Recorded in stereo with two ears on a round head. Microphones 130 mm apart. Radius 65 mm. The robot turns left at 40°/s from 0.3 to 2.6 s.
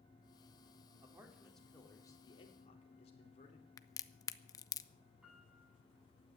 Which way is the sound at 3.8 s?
25° left (ahead or behind).